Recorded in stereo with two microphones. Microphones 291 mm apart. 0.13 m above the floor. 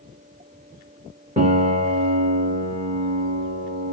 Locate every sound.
1.4 s a piano: 25° right (ahead or behind), 2.5 m